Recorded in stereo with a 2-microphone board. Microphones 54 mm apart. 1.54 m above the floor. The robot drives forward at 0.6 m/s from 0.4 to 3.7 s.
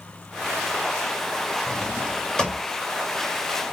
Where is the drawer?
15° left (ahead or behind), 1.3 m.